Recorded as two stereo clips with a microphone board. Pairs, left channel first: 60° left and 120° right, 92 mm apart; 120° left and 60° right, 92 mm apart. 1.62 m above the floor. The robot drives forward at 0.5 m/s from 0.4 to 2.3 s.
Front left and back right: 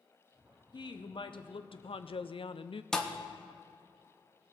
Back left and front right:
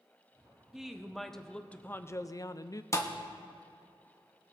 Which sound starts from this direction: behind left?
A thud, at 2.9 s.